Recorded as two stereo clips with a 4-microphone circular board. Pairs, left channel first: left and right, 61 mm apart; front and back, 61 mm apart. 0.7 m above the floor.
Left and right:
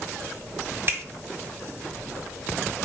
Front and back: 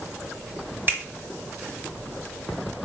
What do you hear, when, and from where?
0.9 s a finger snap: 135° right, 1.0 m